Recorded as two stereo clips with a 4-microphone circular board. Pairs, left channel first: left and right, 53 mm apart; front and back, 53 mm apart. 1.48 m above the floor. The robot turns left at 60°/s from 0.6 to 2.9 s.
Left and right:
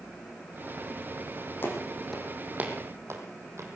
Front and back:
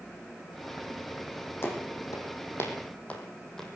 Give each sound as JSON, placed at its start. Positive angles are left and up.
{"t": 1.6, "sound": "footsteps", "azimuth_deg": 40, "distance_m": 4.5}